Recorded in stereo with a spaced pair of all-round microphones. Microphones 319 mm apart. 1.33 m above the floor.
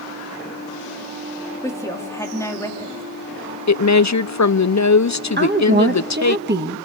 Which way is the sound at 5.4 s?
35° right (ahead or behind).